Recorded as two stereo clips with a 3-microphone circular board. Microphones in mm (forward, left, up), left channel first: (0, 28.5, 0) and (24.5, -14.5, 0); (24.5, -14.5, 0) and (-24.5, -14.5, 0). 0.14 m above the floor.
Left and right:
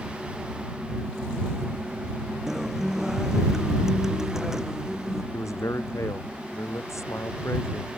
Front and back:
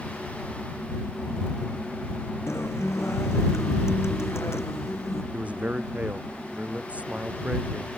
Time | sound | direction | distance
2.5 | a guitar | 20° left | ?
5.3 | a man speaking | 120° left | ?